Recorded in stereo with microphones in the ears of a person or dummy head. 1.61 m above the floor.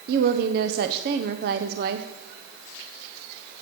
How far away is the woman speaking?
About 0.8 m.